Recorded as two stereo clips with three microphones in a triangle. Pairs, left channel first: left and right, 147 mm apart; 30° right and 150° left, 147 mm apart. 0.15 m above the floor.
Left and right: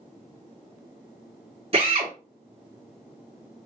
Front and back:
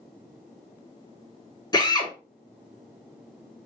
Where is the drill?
80° right, 1.9 m.